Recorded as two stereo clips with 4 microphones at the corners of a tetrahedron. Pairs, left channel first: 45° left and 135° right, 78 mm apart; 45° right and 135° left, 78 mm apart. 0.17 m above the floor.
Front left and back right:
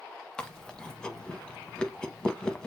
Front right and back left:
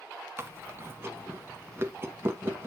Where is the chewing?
115° left, 0.6 m.